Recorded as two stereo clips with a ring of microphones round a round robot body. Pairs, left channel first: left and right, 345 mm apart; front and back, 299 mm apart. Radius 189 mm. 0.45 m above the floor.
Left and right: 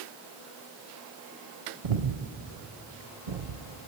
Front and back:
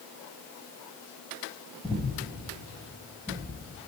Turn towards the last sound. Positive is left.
turn(degrees=-85)